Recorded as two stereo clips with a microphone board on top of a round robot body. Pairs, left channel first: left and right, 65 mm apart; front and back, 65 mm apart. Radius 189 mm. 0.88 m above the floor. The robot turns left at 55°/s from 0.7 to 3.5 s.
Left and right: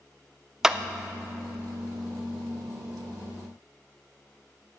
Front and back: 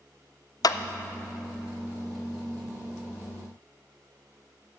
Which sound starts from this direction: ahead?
A clap, at 0.6 s.